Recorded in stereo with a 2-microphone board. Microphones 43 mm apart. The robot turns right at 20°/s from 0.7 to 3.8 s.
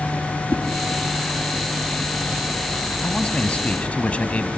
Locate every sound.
0.5 s a whoosh: 35° left (ahead or behind), 1.1 m
3.0 s a man speaking: 25° left (ahead or behind), 1.1 m; by 4.5 s 30° left (ahead or behind), 1.1 m